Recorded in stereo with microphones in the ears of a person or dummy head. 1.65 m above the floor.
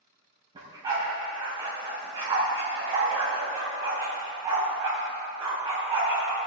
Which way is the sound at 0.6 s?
25° right (ahead or behind).